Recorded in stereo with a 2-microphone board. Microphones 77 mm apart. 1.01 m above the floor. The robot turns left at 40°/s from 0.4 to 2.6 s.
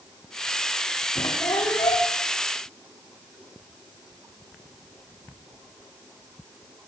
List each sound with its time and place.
1.1 s a squeak: 130° left, 8 m; by 2.1 s 95° left, 8 m